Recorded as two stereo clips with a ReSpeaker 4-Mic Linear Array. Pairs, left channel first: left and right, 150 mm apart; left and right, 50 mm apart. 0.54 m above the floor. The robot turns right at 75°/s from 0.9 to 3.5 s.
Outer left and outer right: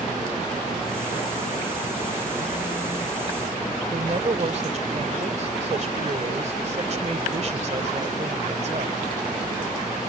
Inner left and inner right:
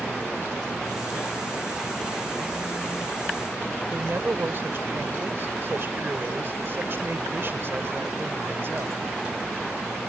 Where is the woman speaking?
50° right (ahead or behind).